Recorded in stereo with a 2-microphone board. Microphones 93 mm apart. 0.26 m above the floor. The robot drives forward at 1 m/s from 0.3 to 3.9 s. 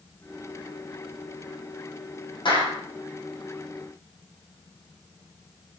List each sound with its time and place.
2.5 s a clap: 65° left (ahead or behind), 9 m